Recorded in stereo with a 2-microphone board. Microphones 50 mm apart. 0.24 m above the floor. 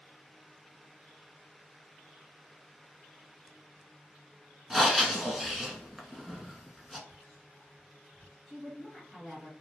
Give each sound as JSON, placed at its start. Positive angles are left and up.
{"t": 4.7, "sound": "breathing", "side_deg": -5, "distance_m": 0.6}
{"t": 7.1, "sound": "whispering", "side_deg": 25, "distance_m": 1.9}
{"t": 8.5, "sound": "a woman speaking", "side_deg": 5, "distance_m": 1.3}